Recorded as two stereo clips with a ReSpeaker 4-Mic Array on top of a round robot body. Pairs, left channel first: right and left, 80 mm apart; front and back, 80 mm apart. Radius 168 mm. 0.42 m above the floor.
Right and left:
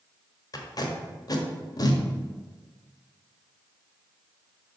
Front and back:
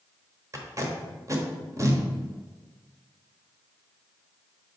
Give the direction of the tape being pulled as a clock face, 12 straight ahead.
4 o'clock.